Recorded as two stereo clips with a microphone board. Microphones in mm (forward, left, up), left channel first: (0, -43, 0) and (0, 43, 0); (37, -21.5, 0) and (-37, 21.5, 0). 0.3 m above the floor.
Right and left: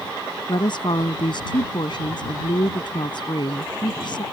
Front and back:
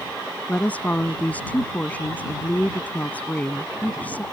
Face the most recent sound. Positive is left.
turn(degrees=-100)